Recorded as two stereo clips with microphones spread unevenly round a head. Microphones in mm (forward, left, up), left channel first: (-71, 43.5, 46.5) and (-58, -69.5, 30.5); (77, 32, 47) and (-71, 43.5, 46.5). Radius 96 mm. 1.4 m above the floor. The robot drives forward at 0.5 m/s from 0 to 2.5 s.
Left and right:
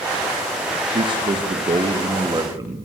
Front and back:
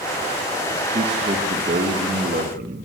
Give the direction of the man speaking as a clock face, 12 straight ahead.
4 o'clock.